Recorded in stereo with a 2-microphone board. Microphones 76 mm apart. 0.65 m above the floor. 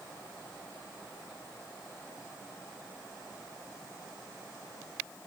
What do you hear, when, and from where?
Only background noise.